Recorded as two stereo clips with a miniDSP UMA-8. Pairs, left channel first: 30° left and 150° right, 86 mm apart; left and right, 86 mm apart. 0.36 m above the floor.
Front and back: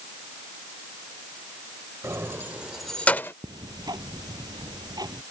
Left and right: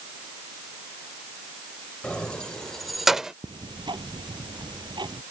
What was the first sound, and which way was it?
Keys jangling, 165° left.